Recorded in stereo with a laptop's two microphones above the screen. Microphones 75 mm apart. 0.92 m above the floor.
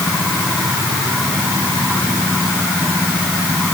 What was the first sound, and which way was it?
Only background noise.